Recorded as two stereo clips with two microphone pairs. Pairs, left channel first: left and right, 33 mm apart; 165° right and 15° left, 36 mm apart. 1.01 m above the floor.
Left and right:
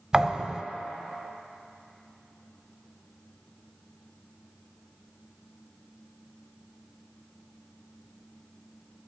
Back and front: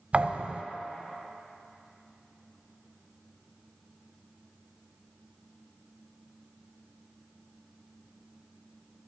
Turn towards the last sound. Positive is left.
turn(degrees=-20)